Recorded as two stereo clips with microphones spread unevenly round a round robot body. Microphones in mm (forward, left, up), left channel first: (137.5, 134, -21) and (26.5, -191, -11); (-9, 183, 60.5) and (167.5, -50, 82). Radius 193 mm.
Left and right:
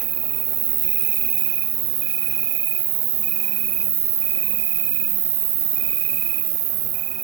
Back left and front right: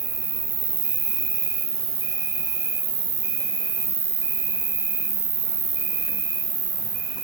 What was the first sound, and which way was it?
An insect, 135° right.